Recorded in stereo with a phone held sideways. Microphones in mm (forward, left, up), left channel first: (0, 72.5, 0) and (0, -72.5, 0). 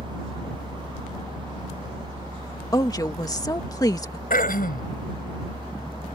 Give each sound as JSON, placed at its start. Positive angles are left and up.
{"t": 0.0, "sound": "a fan", "side_deg": -35}
{"t": 2.7, "sound": "a woman speaking", "side_deg": 25}
{"t": 4.3, "sound": "throat clearing", "side_deg": 80}